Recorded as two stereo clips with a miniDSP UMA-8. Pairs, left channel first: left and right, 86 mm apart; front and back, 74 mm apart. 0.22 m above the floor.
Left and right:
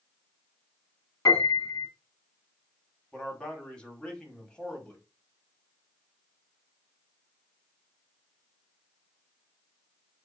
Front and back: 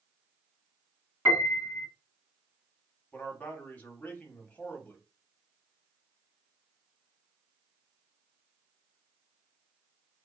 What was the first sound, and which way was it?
A piano, 120° left.